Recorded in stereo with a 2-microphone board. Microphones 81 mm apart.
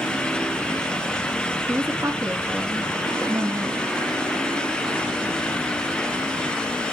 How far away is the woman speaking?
About 2 m.